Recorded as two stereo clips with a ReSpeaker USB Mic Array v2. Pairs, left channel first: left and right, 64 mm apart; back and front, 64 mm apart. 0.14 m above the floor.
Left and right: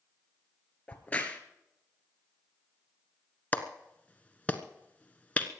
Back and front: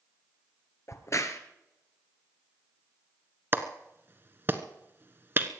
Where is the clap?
35° left, 1.1 m.